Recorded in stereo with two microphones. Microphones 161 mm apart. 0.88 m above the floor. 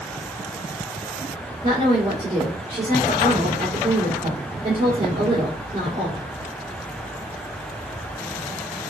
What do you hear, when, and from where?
1.6 s a woman speaking: 35° right (ahead or behind), 3 m